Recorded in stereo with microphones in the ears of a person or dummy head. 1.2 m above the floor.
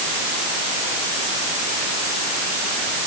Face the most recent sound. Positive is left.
No sound to turn to.